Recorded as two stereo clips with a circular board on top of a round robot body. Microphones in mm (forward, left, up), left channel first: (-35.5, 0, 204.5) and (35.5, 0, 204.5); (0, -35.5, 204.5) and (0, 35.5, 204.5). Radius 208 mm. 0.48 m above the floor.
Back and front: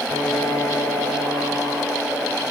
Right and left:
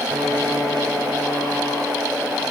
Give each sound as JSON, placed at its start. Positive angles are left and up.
{"t": 0.1, "sound": "a piano", "azimuth_deg": 180, "distance_m": 8.0}